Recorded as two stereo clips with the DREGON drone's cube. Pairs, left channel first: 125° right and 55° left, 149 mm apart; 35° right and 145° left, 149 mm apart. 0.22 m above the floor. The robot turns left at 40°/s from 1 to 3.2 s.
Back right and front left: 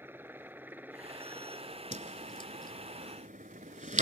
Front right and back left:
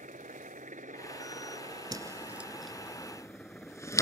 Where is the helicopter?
130° left; by 4.0 s 50° left.